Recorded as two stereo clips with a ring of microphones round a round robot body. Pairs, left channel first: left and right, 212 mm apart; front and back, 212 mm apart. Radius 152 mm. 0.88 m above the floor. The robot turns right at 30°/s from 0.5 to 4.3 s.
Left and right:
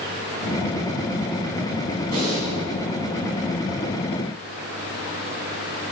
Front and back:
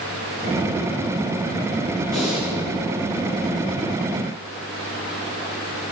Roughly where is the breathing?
Right.